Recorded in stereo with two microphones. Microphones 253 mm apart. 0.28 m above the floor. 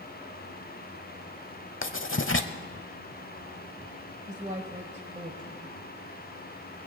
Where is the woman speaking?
30° right (ahead or behind), 1.1 m.